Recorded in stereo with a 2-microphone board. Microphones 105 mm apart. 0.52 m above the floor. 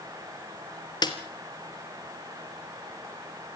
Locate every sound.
1.0 s a snare drum: 40° left (ahead or behind), 2.5 m